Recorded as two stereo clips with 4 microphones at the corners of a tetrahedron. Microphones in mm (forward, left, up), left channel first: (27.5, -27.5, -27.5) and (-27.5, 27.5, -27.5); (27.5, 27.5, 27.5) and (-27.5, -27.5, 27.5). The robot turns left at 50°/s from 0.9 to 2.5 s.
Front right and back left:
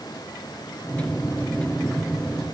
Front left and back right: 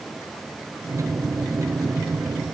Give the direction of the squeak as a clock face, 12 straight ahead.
No squeak in this recording.